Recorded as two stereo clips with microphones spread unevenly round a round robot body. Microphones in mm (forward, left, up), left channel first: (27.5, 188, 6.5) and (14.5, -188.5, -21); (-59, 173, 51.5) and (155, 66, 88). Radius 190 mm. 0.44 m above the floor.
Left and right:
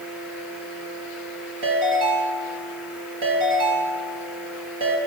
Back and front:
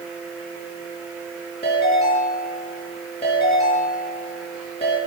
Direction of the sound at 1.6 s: 120° right.